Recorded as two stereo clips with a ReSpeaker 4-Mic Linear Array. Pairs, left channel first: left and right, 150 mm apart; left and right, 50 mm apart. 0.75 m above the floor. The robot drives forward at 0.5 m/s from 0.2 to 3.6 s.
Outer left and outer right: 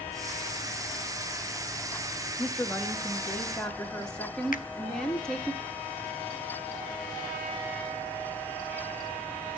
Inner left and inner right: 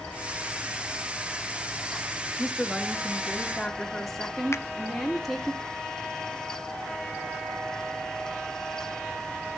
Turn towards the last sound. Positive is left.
turn(degrees=65)  # may be behind; listen again after turning